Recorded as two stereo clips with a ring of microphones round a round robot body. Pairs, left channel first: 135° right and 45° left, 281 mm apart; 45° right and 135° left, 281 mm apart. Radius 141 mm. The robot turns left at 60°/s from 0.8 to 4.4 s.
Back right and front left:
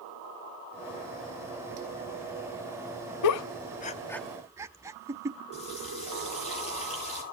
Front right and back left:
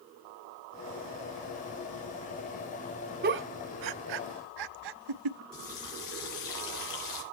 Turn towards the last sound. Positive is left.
turn(degrees=-65)